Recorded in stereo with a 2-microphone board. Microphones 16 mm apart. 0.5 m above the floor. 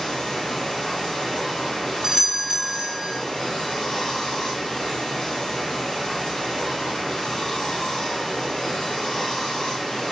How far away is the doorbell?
About 1.3 m.